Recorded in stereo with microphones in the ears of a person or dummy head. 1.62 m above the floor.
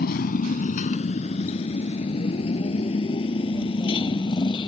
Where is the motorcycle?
55° left (ahead or behind); by 4.7 s 25° left (ahead or behind).